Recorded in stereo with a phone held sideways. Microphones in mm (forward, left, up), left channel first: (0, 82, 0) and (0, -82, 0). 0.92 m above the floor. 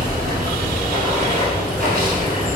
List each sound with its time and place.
0.0 s running water: 60° right (ahead or behind), 1.9 m